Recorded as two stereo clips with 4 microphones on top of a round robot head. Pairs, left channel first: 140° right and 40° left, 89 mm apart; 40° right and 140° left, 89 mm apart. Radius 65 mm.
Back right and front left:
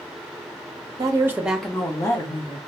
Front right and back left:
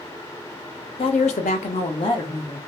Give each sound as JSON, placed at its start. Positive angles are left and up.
{"t": 1.0, "sound": "a woman speaking", "azimuth_deg": -10, "distance_m": 0.6}